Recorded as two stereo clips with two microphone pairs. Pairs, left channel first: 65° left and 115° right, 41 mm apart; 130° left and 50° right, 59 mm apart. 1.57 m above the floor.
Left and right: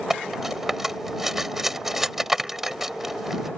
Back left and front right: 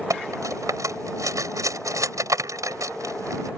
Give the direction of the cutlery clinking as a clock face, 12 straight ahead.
1 o'clock.